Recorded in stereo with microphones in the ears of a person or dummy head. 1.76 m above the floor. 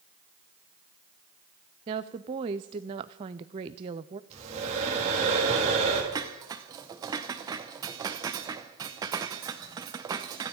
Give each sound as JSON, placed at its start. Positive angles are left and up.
{"t": 1.9, "sound": "a woman speaking", "side_deg": -20, "distance_m": 0.5}
{"t": 4.3, "sound": "breathing", "side_deg": -35, "distance_m": 4.0}
{"t": 6.1, "sound": "dishes clattering", "side_deg": -20, "distance_m": 0.9}